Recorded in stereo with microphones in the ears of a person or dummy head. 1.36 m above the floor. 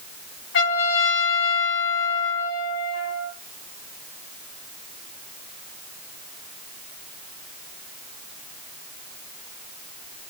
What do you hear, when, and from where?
0.5 s a trumpet: 75° left (ahead or behind), 5 m